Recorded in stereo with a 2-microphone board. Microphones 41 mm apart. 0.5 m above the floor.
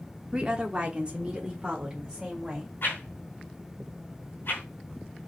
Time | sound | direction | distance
0.3 | a woman speaking | 25° right (ahead or behind) | 1.3 m
2.8 | a whoosh | 65° left (ahead or behind) | 3 m